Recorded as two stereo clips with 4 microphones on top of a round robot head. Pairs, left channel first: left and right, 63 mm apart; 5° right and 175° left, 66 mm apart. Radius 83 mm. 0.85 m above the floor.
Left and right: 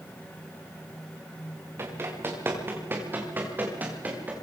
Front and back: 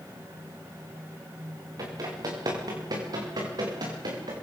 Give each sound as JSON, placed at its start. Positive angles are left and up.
{"t": 1.8, "sound": "running footsteps", "azimuth_deg": -140, "distance_m": 6.5}